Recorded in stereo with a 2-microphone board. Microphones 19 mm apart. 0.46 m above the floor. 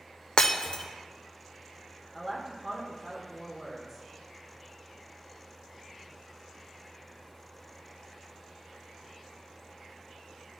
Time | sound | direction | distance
0.4 | breaking glass | 50° left (ahead or behind) | 0.7 m
2.1 | a woman speaking | 15° right (ahead or behind) | 1.1 m